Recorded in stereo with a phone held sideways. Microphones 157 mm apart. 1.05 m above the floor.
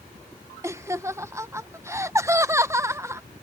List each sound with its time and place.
0.6 s laughter: 15° right (ahead or behind)